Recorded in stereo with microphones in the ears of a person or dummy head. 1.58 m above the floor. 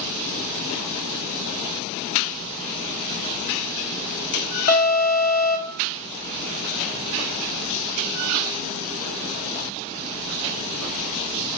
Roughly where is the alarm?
Left.